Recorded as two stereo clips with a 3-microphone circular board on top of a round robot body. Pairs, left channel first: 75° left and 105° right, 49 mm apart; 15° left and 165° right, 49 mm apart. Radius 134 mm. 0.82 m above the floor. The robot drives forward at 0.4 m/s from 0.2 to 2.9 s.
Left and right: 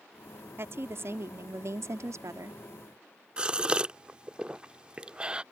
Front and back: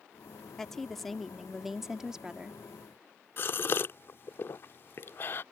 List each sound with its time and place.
0.6 s a woman speaking: 65° right; by 2.6 s 90° right
3.4 s a gasp: 35° right